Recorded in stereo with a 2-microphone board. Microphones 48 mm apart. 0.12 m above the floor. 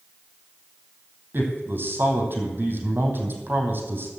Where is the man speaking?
45° right (ahead or behind), 4 m.